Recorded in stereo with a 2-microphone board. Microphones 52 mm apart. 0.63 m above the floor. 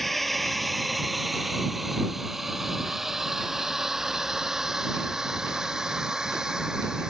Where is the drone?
Centre (ahead or behind); by 7.1 s 15° right (ahead or behind).